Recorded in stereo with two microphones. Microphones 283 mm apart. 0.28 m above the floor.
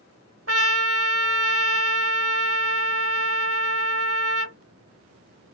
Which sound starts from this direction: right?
A trumpet, at 0.5 s.